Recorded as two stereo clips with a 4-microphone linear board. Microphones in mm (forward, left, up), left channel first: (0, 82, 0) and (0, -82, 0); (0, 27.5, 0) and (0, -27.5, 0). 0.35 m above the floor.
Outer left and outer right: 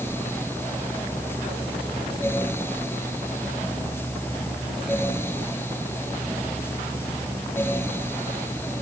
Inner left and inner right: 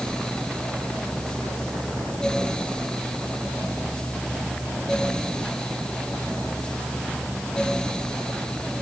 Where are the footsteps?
I don't hear footsteps.